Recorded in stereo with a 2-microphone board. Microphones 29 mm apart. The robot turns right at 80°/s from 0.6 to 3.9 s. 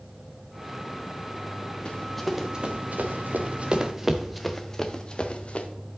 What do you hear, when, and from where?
1.9 s running footsteps: 35° left (ahead or behind), 2 m; by 5.7 s 50° left (ahead or behind), 1.2 m